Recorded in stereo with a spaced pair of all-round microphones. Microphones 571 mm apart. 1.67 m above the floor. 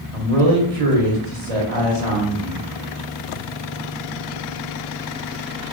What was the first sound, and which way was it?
A man speaking, 80° right.